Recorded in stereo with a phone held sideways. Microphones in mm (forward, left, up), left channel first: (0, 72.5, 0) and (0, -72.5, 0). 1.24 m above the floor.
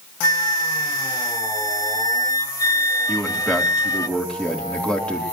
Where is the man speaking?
5° left (ahead or behind), 3.5 m.